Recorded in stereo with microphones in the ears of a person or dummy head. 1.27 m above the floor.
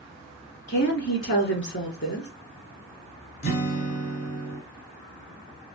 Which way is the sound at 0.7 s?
50° left (ahead or behind).